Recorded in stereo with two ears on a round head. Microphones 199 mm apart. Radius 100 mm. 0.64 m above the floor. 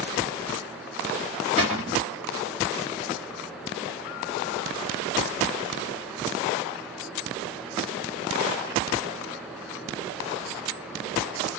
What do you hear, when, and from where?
1.6 s a cupboard door: 30° right (ahead or behind), 1.1 m